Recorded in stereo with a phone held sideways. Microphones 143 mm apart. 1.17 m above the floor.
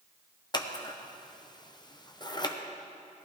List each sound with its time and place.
0.5 s scissors: 30° left (ahead or behind), 0.7 m